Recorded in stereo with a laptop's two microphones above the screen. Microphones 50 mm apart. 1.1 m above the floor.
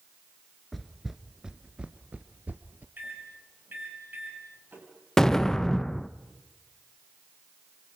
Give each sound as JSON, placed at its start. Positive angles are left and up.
{"t": 0.7, "sound": "footsteps", "side_deg": 0, "distance_m": 1.1}
{"t": 3.0, "sound": "a microwave", "side_deg": -45, "distance_m": 7.5}
{"t": 5.2, "sound": "an explosion", "side_deg": 10, "distance_m": 0.6}